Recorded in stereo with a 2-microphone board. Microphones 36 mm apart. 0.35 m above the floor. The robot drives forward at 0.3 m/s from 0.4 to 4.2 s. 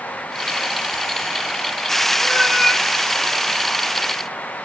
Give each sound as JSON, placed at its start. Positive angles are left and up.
{"t": 2.2, "sound": "a cat meowing", "side_deg": -5, "distance_m": 4.0}